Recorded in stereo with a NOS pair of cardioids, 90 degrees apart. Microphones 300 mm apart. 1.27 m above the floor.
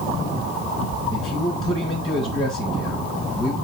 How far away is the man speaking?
About 1.3 m.